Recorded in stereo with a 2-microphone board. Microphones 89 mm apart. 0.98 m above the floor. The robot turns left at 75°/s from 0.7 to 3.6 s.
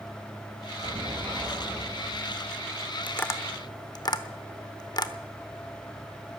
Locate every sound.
0.8 s an explosion: 75° right, 5.5 m; by 2.6 s 155° left, 5.5 m
3.1 s tapping: 20° left (ahead or behind), 0.9 m; by 5.1 s 50° left (ahead or behind), 0.9 m